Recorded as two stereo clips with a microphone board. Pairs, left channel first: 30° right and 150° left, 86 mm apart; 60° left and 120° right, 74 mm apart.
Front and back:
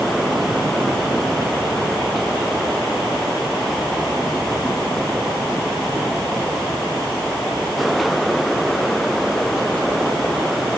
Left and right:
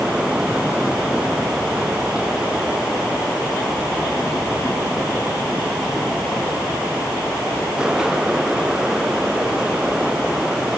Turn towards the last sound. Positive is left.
No sound to turn to.